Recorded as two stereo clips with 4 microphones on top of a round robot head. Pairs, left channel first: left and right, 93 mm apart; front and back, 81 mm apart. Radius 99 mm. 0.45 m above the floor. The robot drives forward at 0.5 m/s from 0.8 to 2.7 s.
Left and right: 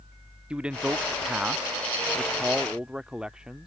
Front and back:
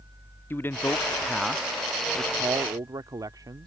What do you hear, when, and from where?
0.5 s a man speaking: 25° right; by 3.7 s 170° right